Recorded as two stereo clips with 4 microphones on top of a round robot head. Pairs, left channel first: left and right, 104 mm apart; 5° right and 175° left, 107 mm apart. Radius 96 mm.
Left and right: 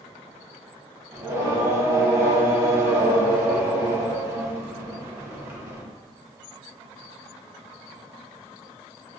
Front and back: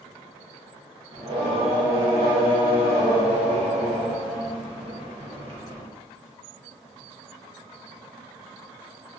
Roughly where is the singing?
Behind right.